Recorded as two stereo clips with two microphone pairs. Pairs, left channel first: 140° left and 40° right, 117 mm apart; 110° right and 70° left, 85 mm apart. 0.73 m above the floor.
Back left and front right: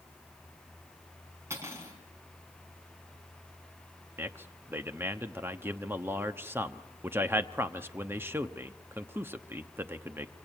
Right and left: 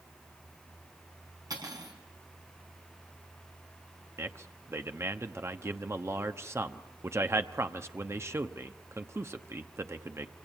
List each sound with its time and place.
1.5 s cutlery clinking: 25° left, 5 m
4.2 s a man speaking: 25° left, 1.0 m